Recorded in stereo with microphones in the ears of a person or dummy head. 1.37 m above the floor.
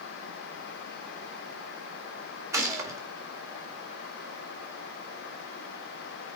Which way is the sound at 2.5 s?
20° right (ahead or behind).